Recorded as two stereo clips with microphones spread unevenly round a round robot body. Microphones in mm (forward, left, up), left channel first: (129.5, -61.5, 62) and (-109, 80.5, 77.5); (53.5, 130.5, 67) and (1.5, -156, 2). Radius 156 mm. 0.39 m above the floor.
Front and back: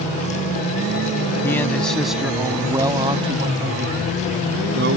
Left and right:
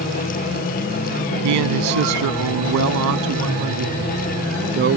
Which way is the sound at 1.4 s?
110° right.